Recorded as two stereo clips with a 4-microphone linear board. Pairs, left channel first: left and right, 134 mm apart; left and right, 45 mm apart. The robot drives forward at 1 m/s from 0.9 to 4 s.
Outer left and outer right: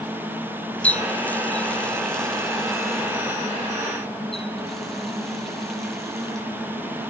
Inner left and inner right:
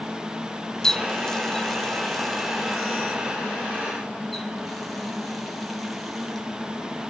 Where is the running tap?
10° left (ahead or behind), 0.7 m; by 6.5 s centre (ahead or behind), 3 m.